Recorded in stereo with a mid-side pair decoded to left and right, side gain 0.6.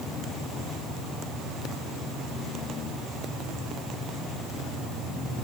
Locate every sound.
Only background noise.